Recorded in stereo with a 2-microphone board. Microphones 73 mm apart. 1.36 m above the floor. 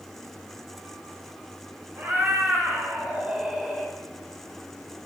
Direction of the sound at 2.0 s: 25° right (ahead or behind).